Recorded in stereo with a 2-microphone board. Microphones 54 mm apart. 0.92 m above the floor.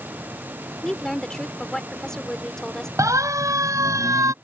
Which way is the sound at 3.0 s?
80° right.